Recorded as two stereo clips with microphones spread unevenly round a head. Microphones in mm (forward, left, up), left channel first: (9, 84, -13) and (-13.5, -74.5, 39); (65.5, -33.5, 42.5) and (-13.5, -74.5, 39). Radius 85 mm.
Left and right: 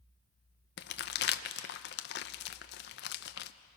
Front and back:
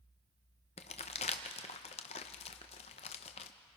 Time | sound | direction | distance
0.8 | crumpling | 50° left | 0.8 m